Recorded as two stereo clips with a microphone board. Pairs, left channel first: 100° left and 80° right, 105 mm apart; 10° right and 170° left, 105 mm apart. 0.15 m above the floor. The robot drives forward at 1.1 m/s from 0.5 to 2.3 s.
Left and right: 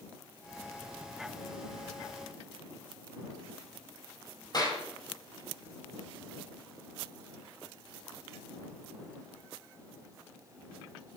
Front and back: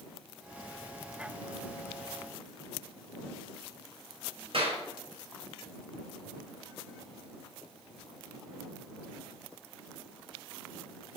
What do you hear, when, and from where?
4.5 s a clap: 145° left, 4 m